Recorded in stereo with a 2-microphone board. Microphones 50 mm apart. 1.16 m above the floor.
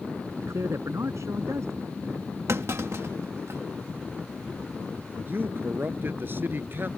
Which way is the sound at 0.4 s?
70° right (ahead or behind).